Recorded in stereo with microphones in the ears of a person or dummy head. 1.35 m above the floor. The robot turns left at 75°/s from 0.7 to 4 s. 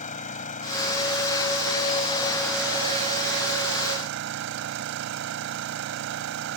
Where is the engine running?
140° left; by 6.6 s 110° right.